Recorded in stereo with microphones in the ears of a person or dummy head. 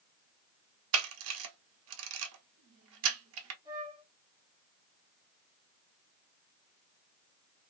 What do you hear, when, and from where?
0.9 s a camera shutter: 75° right (ahead or behind), 0.9 m
3.6 s a flute: 15° right (ahead or behind), 1.1 m